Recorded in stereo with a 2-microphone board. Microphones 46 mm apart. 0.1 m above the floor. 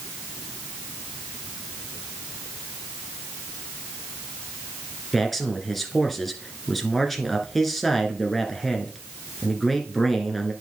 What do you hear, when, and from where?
5.1 s a man speaking: centre (ahead or behind), 1.3 m